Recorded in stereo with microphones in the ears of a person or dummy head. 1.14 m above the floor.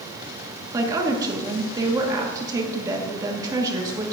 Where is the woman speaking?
15° right (ahead or behind), 1.2 m.